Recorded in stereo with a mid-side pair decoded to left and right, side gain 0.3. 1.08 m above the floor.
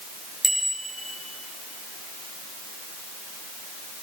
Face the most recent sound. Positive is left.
turn(degrees=-20)